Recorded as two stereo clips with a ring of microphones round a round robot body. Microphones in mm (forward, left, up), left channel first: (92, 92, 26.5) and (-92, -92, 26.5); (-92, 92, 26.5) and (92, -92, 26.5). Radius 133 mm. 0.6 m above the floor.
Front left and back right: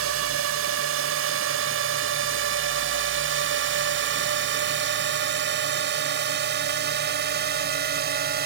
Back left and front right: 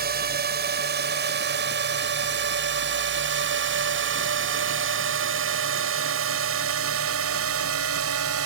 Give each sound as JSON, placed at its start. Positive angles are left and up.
{"t": 0.0, "sound": "a drone", "azimuth_deg": -100}